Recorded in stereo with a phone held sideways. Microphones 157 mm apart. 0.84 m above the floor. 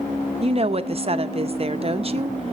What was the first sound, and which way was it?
A woman speaking, 40° right (ahead or behind).